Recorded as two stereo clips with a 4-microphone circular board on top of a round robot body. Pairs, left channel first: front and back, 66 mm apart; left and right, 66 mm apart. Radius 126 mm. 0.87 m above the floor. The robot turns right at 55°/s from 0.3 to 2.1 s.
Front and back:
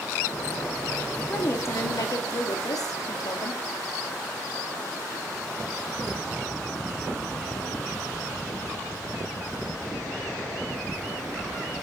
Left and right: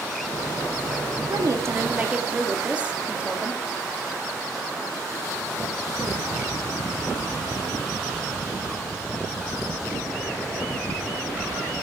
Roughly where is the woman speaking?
Ahead right.